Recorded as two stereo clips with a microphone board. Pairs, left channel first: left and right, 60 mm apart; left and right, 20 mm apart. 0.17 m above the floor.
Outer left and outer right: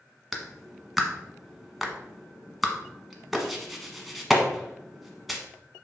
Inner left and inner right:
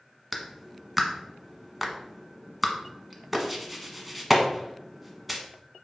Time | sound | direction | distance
0.3 | a clap | centre (ahead or behind) | 1.2 m